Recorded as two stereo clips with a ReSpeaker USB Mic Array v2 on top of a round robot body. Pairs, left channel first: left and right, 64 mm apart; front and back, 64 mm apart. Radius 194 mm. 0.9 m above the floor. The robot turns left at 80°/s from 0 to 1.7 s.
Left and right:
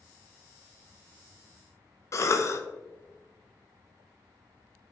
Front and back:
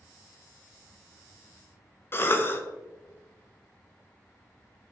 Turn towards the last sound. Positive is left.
turn(degrees=55)